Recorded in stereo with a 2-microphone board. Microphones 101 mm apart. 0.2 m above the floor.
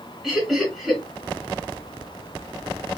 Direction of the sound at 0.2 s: Centre (ahead or behind).